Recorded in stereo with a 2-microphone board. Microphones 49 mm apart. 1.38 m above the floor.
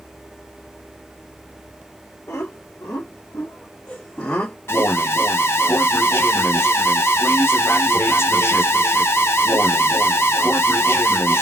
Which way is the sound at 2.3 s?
75° left (ahead or behind).